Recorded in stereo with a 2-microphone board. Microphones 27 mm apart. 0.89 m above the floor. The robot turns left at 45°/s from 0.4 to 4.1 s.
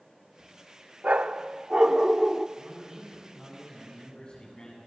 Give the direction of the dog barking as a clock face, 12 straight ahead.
4 o'clock.